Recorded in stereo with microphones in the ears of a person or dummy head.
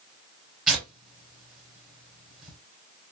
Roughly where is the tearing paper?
Centre.